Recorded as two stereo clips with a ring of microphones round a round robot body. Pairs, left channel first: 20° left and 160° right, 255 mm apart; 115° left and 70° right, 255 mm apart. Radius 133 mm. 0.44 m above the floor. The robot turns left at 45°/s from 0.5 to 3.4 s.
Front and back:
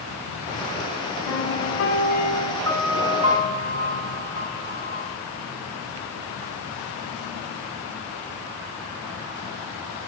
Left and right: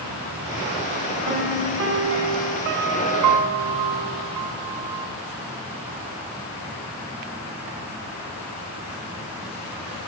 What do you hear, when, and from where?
1.3 s a piano: 5° left, 2.5 m; by 5.1 s 95° right, 2.5 m